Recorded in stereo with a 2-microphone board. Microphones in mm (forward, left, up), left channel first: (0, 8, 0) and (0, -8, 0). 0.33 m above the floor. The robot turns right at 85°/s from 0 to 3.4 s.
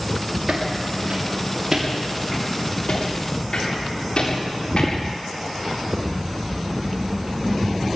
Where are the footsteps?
55° right (ahead or behind), 5.5 m; by 4.9 s 65° left (ahead or behind), 10 m.